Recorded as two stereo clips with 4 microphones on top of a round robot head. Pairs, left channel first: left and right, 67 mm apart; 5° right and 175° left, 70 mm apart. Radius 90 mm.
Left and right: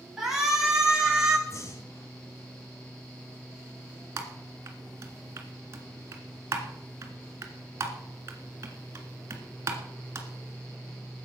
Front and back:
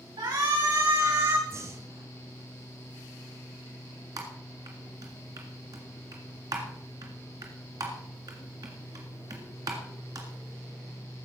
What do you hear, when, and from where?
0.2 s a shout: 175° right, 6 m; by 1.4 s 170° right, 6.5 m
1.5 s breathing: 130° left, 1.6 m
4.2 s typing on a keyboard: 135° right, 1.8 m